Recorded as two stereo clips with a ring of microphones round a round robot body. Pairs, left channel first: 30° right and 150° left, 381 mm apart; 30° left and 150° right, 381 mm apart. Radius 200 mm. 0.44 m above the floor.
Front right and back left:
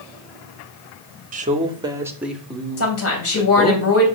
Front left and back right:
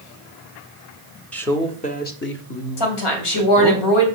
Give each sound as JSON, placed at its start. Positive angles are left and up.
{"t": 1.3, "sound": "a man speaking", "azimuth_deg": 110, "distance_m": 1.2}
{"t": 2.8, "sound": "a woman speaking", "azimuth_deg": 25, "distance_m": 3.0}